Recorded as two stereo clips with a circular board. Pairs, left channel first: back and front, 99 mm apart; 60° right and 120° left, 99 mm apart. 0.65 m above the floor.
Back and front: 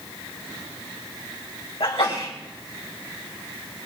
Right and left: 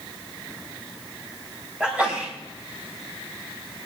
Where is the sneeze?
160° right, 4.5 m.